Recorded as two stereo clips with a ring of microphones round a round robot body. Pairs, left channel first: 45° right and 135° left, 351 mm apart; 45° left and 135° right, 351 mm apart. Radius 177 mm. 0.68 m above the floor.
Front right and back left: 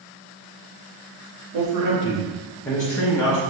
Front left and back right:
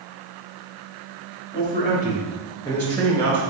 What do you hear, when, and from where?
1.5 s a man speaking: 110° left, 1.3 m; by 3.4 s 50° right, 1.1 m